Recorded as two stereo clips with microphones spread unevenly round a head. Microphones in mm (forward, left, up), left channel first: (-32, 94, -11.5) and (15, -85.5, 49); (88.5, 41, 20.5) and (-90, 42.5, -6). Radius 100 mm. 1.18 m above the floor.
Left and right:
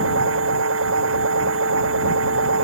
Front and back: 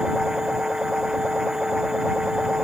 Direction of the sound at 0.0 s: 95° right.